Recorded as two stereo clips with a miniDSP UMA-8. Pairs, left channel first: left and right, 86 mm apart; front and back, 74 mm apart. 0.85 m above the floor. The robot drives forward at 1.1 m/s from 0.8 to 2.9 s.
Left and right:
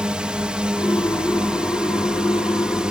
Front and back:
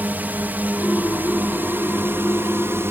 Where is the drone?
155° right; by 2.9 s 160° right.